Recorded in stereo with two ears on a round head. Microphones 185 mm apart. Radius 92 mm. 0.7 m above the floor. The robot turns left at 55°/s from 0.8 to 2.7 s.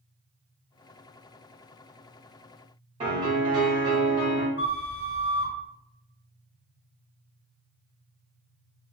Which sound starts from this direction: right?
A piano, at 3.0 s.